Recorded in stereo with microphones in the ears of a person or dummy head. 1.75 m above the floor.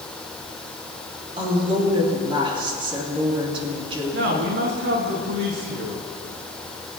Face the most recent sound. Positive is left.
turn(degrees=-70)  # may be behind; listen again after turning